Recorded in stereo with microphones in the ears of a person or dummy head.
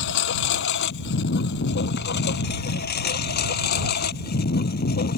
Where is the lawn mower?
60° left (ahead or behind); by 5.2 s 50° left (ahead or behind).